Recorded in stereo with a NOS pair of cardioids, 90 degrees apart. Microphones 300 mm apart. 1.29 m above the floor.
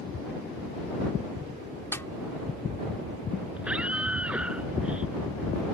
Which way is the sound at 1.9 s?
10° left.